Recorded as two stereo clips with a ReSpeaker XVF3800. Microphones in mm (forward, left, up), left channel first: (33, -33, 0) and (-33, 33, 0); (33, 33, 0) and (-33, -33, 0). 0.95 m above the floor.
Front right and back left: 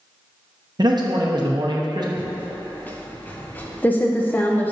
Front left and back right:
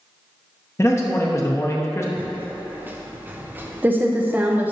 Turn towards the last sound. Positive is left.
turn(degrees=-90)